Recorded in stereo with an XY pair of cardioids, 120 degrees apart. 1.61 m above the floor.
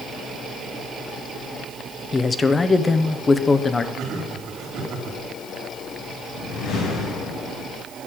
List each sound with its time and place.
2.1 s a man speaking: 20° left, 1.0 m
4.0 s laughter: 65° right, 3 m
6.3 s a whoosh: 70° left, 6.5 m